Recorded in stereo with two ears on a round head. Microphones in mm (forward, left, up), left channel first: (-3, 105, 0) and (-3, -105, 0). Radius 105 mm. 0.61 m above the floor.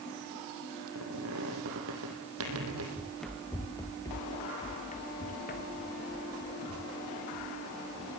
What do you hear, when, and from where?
0.9 s a squeak: 65° right (ahead or behind), 5 m
3.0 s running footsteps: 5° right (ahead or behind), 2.5 m; by 8.2 s 65° left (ahead or behind), 5 m